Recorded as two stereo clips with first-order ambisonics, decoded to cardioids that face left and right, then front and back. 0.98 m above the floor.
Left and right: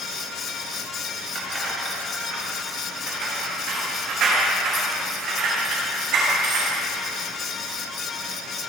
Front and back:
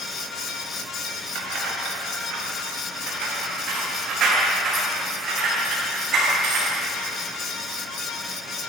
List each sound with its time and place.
1.4 s keys jangling: 150° right, 4.5 m; by 6.8 s 120° right, 6.5 m